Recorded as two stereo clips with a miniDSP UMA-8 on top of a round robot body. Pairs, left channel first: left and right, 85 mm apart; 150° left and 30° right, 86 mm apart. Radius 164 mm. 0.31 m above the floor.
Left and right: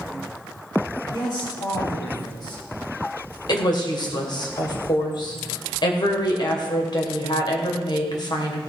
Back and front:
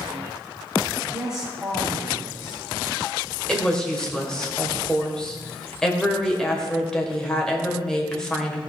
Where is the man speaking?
55° left, 4 m.